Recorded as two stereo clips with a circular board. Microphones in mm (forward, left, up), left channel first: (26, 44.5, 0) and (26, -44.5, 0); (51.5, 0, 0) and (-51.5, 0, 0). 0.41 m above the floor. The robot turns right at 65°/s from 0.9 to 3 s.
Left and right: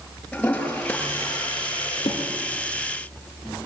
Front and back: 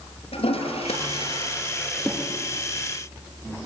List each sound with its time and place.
0.3 s a toilet flushing: 10° left, 5 m; by 2.2 s 100° left, 5 m